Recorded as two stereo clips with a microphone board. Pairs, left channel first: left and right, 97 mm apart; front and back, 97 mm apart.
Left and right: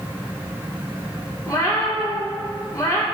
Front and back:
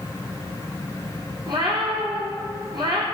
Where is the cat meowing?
145° left, 1.4 m.